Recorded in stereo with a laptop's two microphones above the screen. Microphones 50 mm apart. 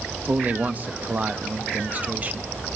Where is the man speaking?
35° right (ahead or behind), 0.7 m.